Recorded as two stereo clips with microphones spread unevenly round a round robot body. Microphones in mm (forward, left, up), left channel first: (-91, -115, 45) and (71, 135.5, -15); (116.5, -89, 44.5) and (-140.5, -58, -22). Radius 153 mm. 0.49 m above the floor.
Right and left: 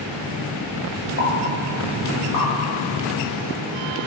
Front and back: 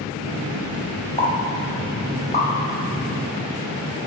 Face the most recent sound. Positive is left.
turn(degrees=-75)